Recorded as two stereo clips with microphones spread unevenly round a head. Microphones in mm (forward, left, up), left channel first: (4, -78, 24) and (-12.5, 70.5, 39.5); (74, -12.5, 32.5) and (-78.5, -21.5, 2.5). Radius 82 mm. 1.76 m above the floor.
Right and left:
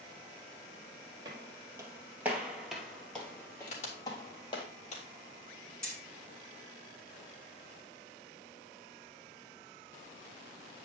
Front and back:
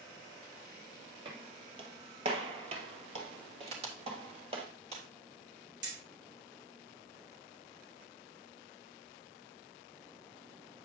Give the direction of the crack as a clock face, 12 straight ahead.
4 o'clock.